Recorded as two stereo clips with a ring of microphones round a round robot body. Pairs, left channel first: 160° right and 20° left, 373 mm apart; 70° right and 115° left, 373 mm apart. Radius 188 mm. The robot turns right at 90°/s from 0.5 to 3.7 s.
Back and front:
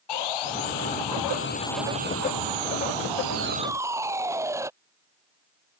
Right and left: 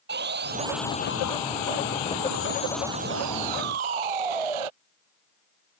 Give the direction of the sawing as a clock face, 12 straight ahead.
6 o'clock.